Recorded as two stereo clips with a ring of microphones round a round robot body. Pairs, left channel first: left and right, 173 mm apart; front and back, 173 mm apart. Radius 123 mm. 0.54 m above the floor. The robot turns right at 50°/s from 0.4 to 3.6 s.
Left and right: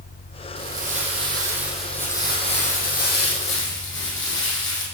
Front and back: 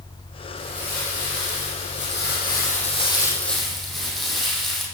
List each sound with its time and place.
0.6 s crumpling: 60° right, 6 m; by 4.8 s 90° left, 6 m